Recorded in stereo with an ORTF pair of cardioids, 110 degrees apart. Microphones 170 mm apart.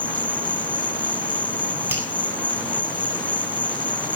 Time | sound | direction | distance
0.0 | an insect | 10° left | 0.9 m
1.9 | a finger snap | 15° right | 8 m